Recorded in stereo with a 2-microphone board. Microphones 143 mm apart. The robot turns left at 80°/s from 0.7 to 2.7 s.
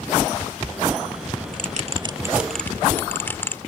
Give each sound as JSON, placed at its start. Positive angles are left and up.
{"t": 1.5, "sound": "a bell", "side_deg": -65}